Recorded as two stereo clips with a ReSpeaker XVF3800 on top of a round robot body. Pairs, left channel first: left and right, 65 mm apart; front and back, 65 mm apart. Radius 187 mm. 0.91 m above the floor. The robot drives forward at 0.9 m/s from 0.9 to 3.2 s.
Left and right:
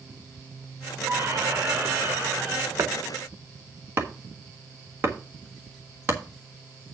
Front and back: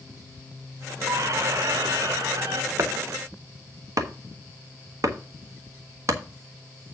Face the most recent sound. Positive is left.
turn(degrees=-145)